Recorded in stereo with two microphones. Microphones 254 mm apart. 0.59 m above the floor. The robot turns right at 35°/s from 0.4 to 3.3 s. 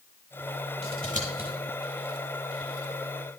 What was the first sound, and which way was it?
Scissors, 30° right (ahead or behind).